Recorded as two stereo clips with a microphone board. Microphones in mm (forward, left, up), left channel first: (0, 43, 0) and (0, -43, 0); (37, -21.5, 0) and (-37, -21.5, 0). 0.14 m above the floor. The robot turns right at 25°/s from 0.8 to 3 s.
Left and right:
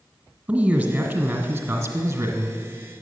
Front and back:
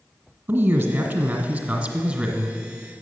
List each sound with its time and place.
0.5 s a man speaking: 145° right, 1.6 m; by 2.6 s 100° right, 1.6 m